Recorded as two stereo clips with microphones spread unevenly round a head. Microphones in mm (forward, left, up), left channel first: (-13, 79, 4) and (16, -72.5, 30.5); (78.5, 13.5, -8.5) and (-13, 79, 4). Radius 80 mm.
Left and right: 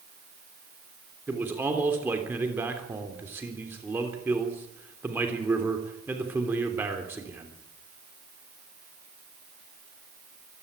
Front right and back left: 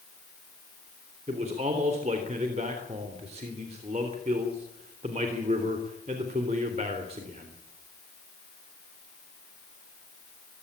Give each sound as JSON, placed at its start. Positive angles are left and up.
{"t": 1.3, "sound": "a man speaking", "azimuth_deg": -160, "distance_m": 3.0}